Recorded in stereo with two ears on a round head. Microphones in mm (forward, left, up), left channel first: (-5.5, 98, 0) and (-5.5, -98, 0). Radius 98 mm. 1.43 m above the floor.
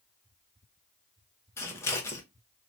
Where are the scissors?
10° left (ahead or behind), 0.7 m.